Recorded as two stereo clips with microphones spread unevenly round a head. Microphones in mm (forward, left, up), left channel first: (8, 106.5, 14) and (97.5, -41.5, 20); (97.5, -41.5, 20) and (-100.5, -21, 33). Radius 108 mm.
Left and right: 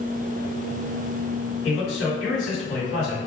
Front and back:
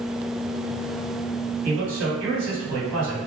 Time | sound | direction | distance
1.6 | a man speaking | 145° left | 1.8 m